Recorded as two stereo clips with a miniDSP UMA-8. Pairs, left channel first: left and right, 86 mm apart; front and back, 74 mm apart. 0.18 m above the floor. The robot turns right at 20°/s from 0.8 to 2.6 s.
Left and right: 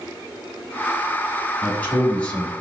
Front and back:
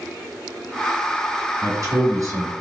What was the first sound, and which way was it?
A man speaking, 150° left.